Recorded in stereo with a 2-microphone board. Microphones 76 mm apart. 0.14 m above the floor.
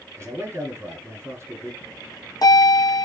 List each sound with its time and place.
0.2 s a man speaking: 35° right (ahead or behind), 1.8 m
1.8 s a bell: 55° left (ahead or behind), 2.0 m